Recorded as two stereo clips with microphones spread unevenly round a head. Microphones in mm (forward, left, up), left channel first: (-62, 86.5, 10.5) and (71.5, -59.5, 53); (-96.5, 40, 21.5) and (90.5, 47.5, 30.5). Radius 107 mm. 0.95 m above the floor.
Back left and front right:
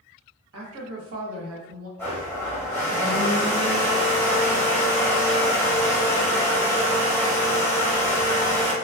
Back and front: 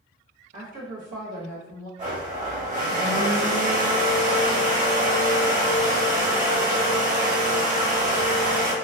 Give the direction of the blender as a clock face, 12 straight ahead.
10 o'clock.